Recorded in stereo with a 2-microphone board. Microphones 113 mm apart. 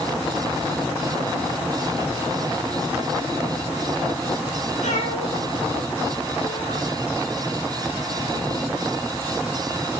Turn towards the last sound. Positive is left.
turn(degrees=85)